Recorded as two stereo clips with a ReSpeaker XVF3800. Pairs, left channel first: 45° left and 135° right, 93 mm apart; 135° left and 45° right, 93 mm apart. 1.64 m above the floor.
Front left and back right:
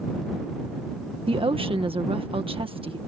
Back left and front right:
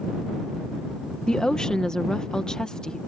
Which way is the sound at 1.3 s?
145° right.